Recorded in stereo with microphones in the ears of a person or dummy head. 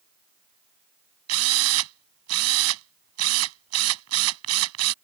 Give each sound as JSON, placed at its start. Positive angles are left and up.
{"t": 1.3, "sound": "a drill", "side_deg": -90}